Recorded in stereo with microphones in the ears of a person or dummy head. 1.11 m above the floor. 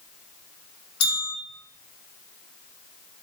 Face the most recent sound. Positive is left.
turn(degrees=65)  # may be behind; listen again after turning